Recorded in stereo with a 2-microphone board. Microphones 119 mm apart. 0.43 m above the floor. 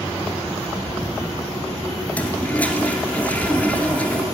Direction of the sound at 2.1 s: 10° left (ahead or behind).